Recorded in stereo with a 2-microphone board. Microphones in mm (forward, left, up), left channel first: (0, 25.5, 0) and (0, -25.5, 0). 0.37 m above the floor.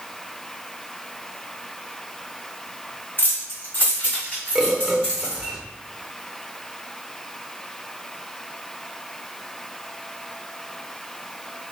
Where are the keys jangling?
45° left (ahead or behind), 1.6 m; by 5.5 s 15° left (ahead or behind), 2.5 m.